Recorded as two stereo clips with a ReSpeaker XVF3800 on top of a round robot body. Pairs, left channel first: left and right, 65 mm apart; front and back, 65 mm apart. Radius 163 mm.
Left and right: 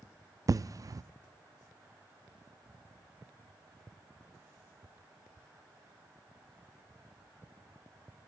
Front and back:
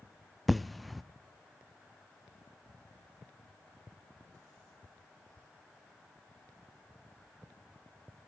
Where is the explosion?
90° right, 0.5 m.